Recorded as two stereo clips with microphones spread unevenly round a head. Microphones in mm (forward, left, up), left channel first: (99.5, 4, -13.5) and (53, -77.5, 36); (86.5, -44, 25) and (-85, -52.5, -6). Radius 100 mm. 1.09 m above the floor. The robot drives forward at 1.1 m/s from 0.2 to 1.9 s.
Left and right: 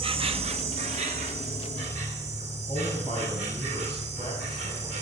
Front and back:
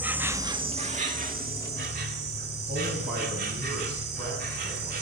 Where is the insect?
95° right, 1.2 m; by 5.0 s 150° right, 2.5 m.